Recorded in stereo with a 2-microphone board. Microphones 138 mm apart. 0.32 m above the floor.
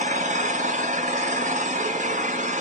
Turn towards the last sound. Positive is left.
turn(degrees=-70)  # may be behind; listen again after turning